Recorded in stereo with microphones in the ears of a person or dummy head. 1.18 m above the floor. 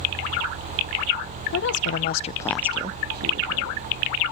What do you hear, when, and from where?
1.5 s a woman speaking: 60° left (ahead or behind), 1.2 m; by 3.9 s 60° right (ahead or behind), 1.6 m